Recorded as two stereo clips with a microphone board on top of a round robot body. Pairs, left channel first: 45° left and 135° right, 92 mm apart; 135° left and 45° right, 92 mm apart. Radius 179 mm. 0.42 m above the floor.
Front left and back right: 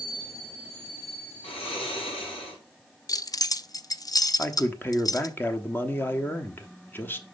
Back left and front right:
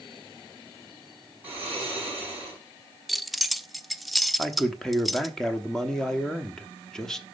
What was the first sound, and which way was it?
Snoring, 25° left.